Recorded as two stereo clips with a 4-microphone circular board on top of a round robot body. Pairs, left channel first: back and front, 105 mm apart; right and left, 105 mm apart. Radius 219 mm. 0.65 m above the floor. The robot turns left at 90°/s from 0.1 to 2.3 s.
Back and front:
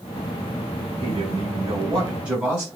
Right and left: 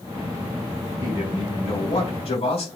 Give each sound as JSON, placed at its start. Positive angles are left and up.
{"t": 1.0, "sound": "a man speaking", "azimuth_deg": 35, "distance_m": 7.0}